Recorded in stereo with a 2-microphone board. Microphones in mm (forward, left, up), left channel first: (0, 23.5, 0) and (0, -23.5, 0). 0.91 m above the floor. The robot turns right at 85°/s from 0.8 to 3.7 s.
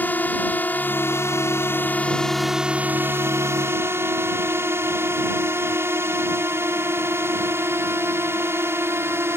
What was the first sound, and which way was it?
A drone, 40° left.